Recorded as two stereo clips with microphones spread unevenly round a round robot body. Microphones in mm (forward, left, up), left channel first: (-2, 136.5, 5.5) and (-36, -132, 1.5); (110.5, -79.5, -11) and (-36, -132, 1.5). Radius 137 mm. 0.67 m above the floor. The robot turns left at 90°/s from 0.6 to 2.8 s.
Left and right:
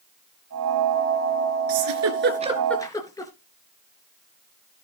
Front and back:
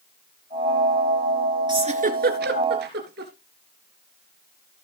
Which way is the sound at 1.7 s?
100° right.